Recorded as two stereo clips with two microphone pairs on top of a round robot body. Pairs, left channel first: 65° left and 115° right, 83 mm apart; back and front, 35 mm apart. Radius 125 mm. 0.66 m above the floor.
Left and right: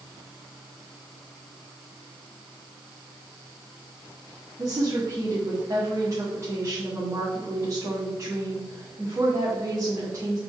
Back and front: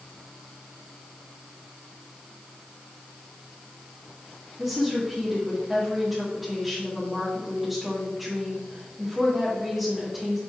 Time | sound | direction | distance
4.6 | a woman speaking | 70° right | 1.8 m